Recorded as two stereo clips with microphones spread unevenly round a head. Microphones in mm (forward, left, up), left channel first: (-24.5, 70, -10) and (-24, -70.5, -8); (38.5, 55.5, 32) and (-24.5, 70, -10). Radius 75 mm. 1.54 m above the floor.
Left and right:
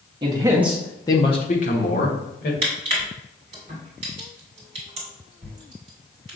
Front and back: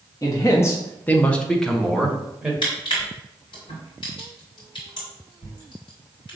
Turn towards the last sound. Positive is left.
turn(degrees=-35)